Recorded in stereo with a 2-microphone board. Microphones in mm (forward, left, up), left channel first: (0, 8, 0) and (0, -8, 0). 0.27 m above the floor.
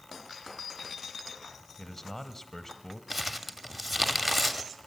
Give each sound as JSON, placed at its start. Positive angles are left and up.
{"t": 1.8, "sound": "a man speaking", "side_deg": 25, "distance_m": 1.1}
{"t": 3.1, "sound": "crumpling", "side_deg": -10, "distance_m": 0.9}